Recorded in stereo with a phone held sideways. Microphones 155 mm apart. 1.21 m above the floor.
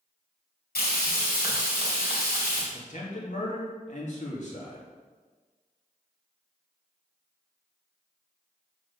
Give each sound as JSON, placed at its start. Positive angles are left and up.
{"t": 0.8, "sound": "frying", "side_deg": 80, "distance_m": 2.5}
{"t": 2.7, "sound": "a man speaking", "side_deg": 50, "distance_m": 1.6}